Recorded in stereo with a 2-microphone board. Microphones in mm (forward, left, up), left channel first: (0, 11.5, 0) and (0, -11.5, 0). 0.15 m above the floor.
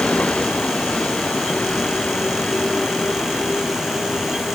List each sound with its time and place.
0.0 s a vehicle: 70° left (ahead or behind); by 4.5 s 65° left (ahead or behind)